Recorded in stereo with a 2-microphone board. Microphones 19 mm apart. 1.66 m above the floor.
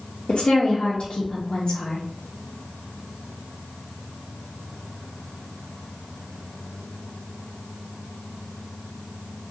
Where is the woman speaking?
70° left (ahead or behind), 0.6 m.